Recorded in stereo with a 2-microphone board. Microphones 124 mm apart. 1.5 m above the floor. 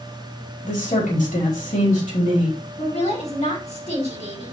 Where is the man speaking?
90° left, 4 m.